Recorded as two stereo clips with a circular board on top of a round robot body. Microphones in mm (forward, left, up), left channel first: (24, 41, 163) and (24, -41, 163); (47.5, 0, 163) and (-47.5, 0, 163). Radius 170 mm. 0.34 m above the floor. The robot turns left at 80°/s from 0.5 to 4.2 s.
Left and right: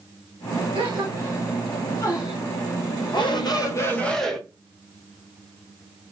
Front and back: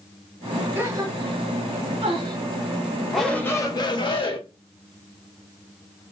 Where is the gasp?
110° right, 1.3 m; by 2.4 s 120° left, 1.3 m.